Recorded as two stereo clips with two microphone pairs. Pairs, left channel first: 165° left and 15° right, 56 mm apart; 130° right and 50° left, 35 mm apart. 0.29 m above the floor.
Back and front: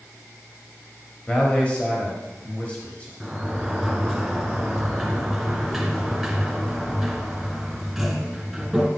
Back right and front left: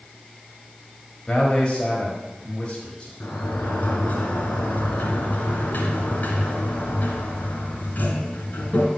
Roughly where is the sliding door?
Right.